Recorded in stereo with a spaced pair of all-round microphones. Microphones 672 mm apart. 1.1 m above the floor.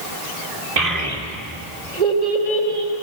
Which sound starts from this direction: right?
A child speaking, at 0.8 s.